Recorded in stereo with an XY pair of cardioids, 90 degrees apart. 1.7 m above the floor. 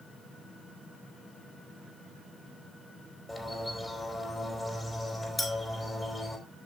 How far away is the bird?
About 4.5 m.